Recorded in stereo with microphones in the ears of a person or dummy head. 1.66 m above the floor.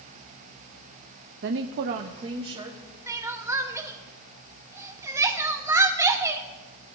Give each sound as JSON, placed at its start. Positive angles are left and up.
{"t": 1.4, "sound": "a woman speaking", "side_deg": -55, "distance_m": 0.6}
{"t": 3.1, "sound": "crying", "side_deg": -15, "distance_m": 0.9}